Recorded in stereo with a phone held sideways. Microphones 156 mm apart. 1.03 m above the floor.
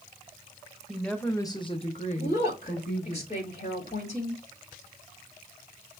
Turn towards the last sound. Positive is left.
turn(degrees=45)  # may be behind; listen again after turning